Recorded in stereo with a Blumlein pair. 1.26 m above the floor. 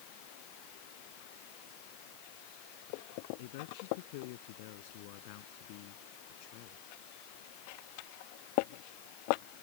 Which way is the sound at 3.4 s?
50° left.